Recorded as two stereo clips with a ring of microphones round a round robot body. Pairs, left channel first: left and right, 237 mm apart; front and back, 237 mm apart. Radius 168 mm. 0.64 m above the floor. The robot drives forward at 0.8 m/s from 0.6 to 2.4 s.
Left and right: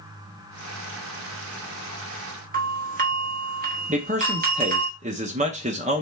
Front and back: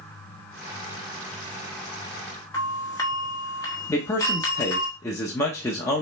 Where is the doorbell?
70° right, 1.3 m.